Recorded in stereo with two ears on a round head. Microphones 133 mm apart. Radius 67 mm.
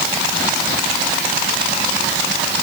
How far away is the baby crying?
I don't hear a baby crying.